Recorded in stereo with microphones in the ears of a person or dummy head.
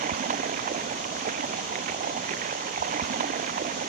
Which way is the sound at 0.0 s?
45° right (ahead or behind).